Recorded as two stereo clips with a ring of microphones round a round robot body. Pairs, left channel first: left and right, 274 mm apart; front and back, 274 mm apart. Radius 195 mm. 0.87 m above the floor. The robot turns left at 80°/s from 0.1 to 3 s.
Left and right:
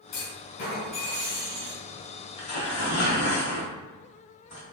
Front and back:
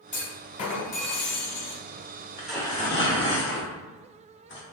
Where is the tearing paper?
100° left, 1.2 m; by 4.6 s 50° left, 1.2 m.